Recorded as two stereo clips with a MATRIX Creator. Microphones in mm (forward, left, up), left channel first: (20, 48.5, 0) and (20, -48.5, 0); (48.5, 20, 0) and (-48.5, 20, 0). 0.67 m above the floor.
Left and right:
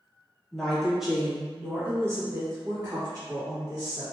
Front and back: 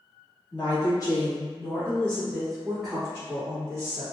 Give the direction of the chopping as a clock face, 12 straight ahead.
I don't hear chopping.